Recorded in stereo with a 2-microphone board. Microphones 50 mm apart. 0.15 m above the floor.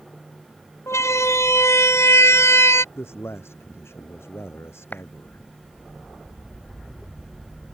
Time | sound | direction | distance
0.9 | a siren | 70° left (ahead or behind) | ?
3.0 | a man speaking | 55° left (ahead or behind) | ?
4.9 | a clap | 35° left (ahead or behind) | ?